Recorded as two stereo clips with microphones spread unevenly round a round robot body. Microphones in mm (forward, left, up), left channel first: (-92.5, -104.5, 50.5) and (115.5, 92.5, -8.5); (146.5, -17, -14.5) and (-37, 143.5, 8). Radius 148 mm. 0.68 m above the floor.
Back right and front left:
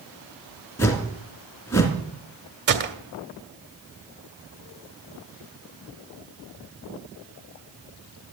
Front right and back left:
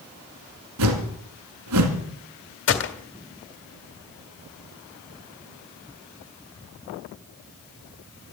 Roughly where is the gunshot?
Ahead.